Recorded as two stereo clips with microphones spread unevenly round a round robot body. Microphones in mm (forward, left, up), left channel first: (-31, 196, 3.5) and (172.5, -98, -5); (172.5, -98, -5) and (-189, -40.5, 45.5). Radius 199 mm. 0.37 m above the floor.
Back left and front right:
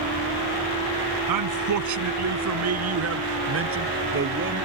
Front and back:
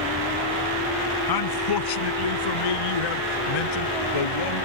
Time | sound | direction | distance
1.3 | a man speaking | 30° right | ?